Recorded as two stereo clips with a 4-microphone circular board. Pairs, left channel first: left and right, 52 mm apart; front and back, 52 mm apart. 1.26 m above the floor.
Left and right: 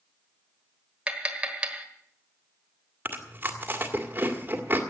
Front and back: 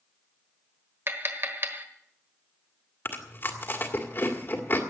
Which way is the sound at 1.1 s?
155° right.